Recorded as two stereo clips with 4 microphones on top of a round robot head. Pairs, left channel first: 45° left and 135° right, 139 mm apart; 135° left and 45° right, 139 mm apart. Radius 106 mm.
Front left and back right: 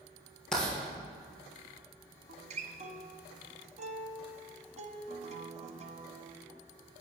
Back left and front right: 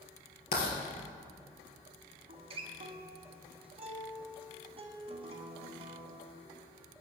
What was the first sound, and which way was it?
Writing, 130° left.